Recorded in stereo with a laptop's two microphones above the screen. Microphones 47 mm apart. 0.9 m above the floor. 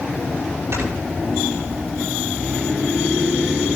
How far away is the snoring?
About 6.5 m.